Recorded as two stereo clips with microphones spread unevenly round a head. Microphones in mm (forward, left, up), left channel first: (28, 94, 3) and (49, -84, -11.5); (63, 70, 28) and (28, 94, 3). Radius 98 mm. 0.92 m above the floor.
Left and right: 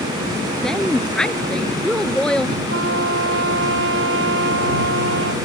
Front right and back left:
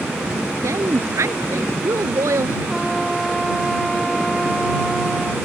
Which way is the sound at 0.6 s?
175° right.